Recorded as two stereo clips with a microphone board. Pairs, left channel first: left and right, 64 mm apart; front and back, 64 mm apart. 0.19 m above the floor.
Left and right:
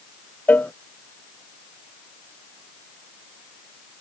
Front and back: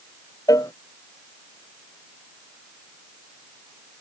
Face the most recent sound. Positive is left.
turn(degrees=25)